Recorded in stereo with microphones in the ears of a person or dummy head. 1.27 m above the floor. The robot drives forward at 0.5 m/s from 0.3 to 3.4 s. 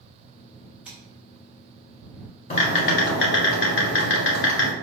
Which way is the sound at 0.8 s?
5° right (ahead or behind).